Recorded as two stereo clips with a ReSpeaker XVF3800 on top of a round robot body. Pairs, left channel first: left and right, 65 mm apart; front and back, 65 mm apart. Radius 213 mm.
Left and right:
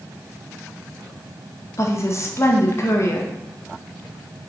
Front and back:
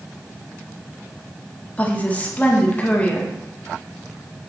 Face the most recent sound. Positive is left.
turn(degrees=60)